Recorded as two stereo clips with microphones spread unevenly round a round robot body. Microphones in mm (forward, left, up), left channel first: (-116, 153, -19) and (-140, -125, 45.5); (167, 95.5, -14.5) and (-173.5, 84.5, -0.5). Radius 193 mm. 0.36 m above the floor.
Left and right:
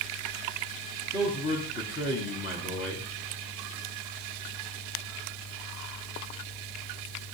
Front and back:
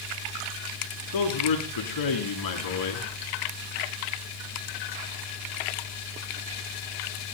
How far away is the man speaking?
About 3.5 m.